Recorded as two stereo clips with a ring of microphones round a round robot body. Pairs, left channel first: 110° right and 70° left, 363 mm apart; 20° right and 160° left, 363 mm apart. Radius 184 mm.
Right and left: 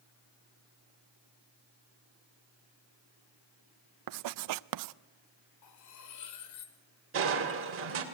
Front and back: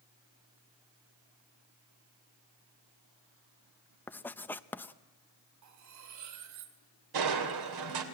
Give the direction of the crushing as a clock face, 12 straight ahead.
8 o'clock.